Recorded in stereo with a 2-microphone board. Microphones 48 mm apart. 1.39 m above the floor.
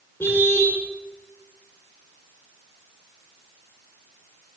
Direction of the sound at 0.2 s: 55° left (ahead or behind).